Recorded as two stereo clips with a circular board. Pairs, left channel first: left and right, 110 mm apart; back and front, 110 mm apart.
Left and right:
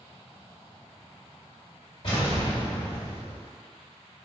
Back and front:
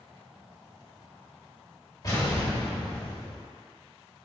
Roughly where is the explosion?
Behind left.